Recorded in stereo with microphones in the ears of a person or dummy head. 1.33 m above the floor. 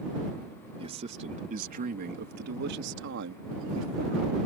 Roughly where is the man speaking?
Right.